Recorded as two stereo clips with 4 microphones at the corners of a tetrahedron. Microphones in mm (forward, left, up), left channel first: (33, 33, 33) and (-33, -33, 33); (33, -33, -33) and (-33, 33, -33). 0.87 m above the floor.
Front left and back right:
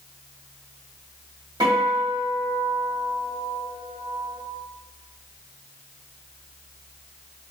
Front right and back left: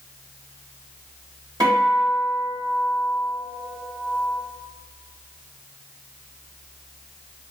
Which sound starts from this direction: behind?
A guitar, at 1.6 s.